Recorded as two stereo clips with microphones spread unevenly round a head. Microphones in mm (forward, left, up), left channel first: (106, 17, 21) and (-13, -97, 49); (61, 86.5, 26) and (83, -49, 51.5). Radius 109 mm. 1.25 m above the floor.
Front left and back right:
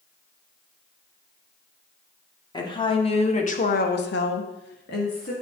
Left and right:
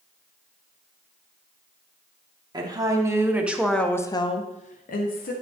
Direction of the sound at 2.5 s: 20° right.